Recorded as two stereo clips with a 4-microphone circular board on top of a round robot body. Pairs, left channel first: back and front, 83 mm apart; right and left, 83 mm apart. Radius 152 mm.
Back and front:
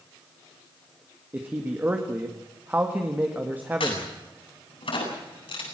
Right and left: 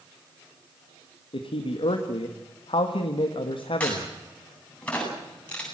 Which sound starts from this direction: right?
A man speaking, at 1.3 s.